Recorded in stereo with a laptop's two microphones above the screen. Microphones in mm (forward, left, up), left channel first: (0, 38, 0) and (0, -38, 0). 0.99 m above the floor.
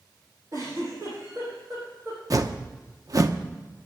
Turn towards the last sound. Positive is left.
turn(degrees=-50)  # may be behind; listen again after turning